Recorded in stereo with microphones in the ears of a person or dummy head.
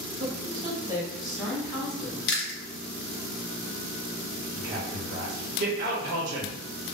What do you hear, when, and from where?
0.2 s a woman speaking: 55° right (ahead or behind), 0.8 m; by 2.2 s 15° left (ahead or behind), 1.1 m
2.3 s chewing: 50° left (ahead or behind), 0.7 m
4.5 s a man speaking: 50° right (ahead or behind), 0.9 m